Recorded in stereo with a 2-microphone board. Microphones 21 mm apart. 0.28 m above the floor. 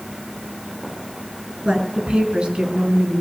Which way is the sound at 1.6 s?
55° right (ahead or behind).